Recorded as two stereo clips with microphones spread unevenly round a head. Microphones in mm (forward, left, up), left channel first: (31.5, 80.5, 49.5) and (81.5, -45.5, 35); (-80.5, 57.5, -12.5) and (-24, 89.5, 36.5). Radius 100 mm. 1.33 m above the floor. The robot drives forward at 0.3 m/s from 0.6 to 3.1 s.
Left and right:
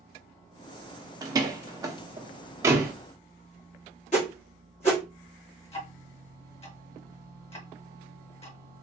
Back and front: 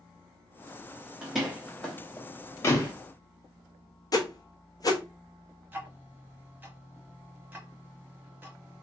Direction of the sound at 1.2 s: 5° right.